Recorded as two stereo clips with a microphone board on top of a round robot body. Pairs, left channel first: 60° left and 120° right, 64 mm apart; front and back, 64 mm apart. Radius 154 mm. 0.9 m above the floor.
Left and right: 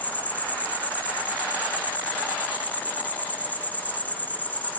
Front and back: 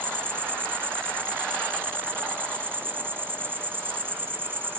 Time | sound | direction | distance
0.0 | an insect | 125° left | 1.5 m